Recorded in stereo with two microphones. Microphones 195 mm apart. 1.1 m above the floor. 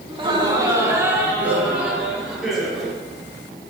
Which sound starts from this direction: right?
Laughter, at 0.1 s.